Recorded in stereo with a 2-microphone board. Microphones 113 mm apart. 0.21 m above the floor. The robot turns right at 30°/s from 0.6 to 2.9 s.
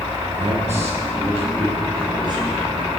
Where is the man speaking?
95° right, 5 m; by 2.6 s 30° right, 5 m.